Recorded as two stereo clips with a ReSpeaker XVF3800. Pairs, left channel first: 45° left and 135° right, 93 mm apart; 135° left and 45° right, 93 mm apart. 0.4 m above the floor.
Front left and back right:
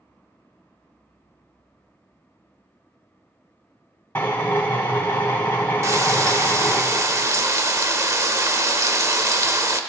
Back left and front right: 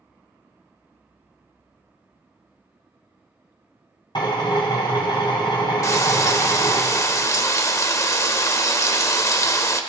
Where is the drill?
110° left, 2.5 m.